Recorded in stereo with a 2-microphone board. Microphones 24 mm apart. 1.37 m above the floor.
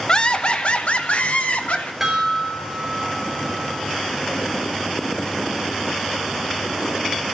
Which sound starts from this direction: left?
Laughter, at 0.1 s.